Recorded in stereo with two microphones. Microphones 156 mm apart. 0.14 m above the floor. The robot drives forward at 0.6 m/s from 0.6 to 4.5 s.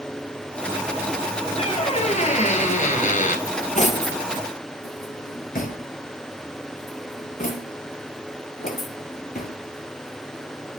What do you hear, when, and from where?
1.6 s a squeak: 40° left (ahead or behind), 2 m; by 3.4 s 60° left (ahead or behind), 1.7 m
3.5 s cutlery clinking: 50° left (ahead or behind), 1.9 m; by 9.5 s 60° left (ahead or behind), 1.6 m